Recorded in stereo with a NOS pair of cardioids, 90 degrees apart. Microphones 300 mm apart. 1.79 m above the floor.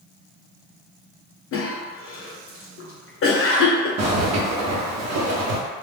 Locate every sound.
1.5 s a cough: 45° left, 0.9 m
4.0 s a zipper: 65° right, 0.9 m